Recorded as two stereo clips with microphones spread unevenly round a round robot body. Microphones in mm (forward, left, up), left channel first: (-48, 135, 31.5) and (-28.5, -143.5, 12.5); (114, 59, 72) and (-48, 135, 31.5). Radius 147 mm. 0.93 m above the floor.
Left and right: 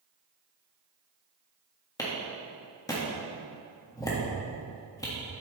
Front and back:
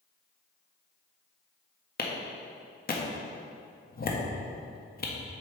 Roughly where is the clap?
Ahead.